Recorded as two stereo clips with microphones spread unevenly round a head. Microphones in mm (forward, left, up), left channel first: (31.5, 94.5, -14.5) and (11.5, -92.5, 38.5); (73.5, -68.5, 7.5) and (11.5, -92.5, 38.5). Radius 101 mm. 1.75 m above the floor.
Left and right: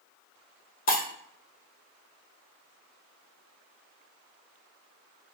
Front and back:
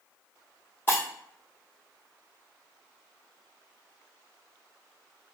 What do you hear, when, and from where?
0.9 s breaking glass: 110° left, 1.0 m